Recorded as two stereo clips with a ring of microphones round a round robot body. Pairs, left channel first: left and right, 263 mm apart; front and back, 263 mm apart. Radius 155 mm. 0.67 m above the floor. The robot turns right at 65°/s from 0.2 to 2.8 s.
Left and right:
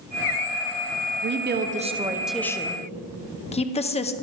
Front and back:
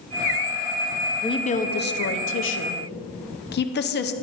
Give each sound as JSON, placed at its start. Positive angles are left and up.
{"t": 1.2, "sound": "a woman speaking", "azimuth_deg": -70, "distance_m": 0.9}